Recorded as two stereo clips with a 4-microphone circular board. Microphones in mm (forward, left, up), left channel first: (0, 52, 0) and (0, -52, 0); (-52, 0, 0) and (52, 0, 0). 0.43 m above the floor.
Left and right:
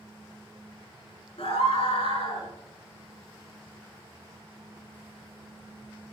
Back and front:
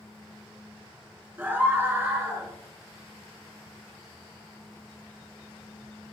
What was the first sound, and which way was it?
A scream, 70° left.